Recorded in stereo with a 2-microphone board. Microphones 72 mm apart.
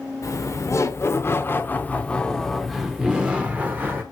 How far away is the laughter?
About 1.3 m.